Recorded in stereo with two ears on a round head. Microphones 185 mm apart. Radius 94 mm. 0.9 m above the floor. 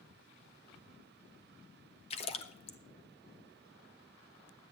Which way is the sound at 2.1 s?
30° left (ahead or behind).